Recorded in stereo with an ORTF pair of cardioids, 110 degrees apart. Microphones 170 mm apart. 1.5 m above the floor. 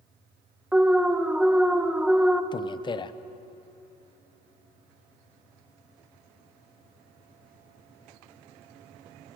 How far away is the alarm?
About 1.0 m.